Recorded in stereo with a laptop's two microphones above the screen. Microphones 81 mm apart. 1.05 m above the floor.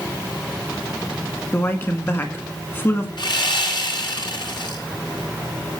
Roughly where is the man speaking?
Left.